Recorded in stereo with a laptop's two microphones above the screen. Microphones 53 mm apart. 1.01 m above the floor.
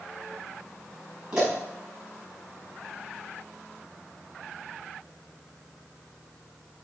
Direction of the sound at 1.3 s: 15° right (ahead or behind).